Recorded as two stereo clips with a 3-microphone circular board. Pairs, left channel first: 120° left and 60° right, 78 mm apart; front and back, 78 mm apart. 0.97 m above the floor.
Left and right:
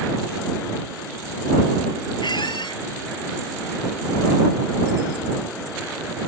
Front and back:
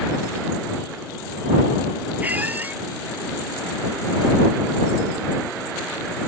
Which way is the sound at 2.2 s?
110° left.